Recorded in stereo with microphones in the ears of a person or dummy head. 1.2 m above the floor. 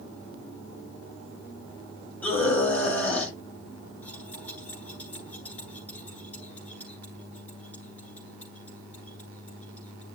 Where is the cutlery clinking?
10° left (ahead or behind), 10 m.